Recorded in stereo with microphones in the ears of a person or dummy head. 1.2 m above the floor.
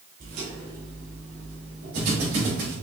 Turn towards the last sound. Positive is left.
turn(degrees=-65)  # may be behind; listen again after turning